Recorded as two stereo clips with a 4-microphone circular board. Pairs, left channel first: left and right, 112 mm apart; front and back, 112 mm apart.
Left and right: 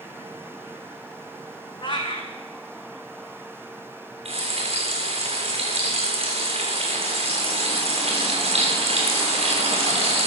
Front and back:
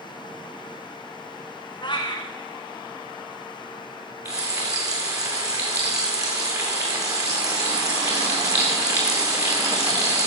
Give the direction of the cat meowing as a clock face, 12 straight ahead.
10 o'clock.